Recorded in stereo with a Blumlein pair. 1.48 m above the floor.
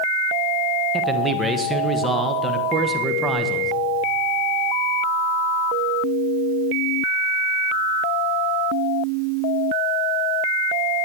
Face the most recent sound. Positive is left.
turn(degrees=-10)